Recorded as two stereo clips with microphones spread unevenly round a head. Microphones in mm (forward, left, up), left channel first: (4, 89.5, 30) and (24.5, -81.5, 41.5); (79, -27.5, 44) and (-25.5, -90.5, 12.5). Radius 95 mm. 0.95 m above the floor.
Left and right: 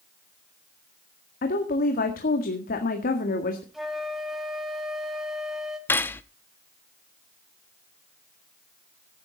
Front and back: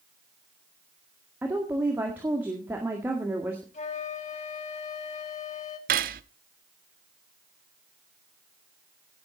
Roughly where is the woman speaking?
Behind left.